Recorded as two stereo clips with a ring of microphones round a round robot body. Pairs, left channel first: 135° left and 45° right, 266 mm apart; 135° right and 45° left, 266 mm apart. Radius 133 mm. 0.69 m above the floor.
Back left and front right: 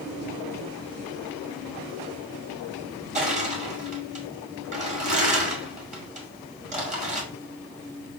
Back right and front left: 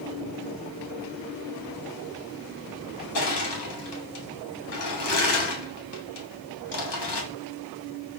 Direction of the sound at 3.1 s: 105° right.